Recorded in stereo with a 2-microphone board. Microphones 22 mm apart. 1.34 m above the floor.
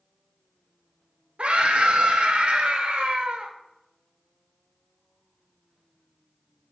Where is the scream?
70° right (ahead or behind), 1.1 m.